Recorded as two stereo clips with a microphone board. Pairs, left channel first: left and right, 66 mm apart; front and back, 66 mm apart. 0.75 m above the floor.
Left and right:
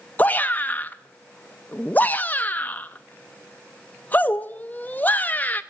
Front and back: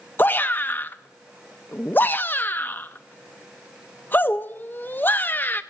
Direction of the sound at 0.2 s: 40° left.